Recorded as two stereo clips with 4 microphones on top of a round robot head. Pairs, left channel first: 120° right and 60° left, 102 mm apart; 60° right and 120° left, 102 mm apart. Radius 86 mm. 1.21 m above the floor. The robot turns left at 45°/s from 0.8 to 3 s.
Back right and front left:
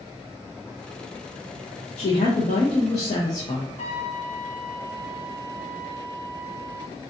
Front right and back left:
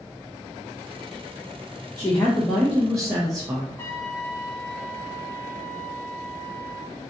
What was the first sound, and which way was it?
A woman speaking, 130° right.